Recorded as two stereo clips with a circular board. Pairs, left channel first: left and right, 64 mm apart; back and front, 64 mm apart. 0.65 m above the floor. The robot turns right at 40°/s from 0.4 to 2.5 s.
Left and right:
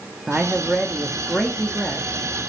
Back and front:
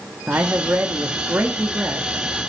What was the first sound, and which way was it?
A man speaking, 35° right.